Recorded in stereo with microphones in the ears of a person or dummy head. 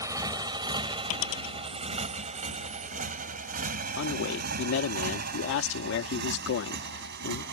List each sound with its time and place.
0.0 s a motorcycle: 20° right (ahead or behind); by 7.5 s 60° right (ahead or behind)
1.1 s a dropped coin: 65° left (ahead or behind)
4.0 s a man speaking: 70° left (ahead or behind)